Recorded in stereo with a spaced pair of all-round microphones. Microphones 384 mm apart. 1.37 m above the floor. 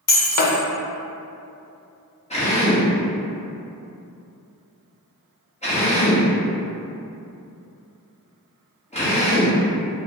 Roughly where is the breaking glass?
Left.